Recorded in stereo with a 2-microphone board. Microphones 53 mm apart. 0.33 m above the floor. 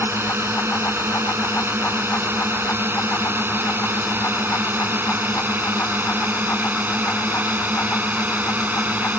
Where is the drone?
50° right (ahead or behind); by 9.2 s 35° right (ahead or behind).